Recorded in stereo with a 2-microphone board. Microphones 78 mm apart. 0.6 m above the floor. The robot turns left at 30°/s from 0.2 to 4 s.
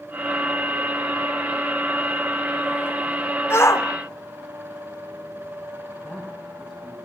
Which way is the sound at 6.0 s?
5° right (ahead or behind).